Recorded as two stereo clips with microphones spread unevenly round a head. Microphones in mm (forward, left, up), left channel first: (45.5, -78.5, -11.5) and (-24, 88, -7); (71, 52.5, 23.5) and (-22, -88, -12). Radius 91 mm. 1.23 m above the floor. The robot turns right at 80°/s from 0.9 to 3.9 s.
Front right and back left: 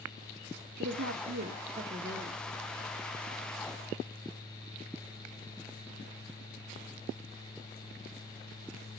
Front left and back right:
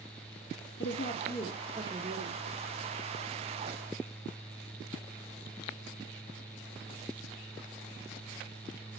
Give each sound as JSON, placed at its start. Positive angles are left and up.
{"t": 0.8, "sound": "a woman speaking", "azimuth_deg": 90, "distance_m": 1.4}